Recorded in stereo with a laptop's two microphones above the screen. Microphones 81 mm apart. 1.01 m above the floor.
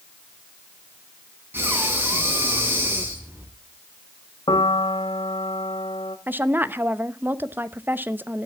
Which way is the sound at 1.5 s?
25° right (ahead or behind).